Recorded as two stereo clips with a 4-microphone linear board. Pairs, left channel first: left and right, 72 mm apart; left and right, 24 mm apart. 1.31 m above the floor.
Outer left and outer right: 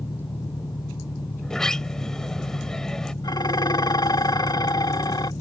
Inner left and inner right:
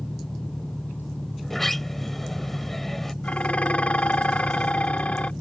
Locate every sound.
0.0 s an engine running: 80° left
1.4 s a sliding door: 5° left (ahead or behind)
3.2 s dishes clattering: 75° left (ahead or behind)